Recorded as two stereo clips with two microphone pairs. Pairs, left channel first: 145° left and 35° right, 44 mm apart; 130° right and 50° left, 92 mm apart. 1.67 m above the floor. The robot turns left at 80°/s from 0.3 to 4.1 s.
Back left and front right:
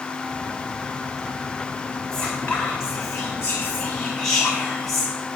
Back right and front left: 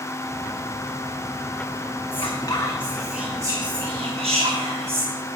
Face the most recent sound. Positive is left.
turn(degrees=55)